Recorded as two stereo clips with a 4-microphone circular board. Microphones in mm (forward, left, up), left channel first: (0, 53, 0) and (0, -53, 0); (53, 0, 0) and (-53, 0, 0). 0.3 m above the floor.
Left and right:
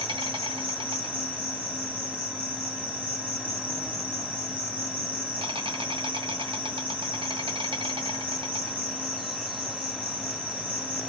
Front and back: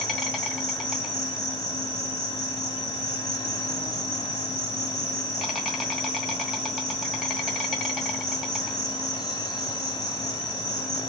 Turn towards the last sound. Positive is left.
turn(degrees=-90)